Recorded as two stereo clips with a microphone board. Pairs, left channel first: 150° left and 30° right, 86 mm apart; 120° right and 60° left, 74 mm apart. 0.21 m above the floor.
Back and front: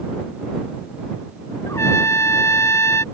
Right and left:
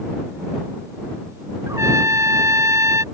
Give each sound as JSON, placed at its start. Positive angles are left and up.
{"t": 1.7, "sound": "a trumpet", "azimuth_deg": 100}